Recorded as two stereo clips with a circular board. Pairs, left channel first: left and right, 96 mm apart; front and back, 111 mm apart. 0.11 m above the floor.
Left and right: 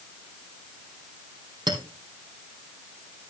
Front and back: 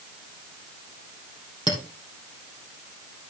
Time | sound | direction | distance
1.7 | a clink | 50° right | 3 m